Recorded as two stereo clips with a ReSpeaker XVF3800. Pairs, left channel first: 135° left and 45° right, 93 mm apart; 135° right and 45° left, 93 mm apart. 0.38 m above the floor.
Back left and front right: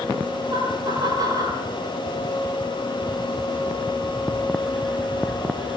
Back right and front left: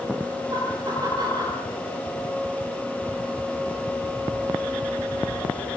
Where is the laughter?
Straight ahead, 8.5 m.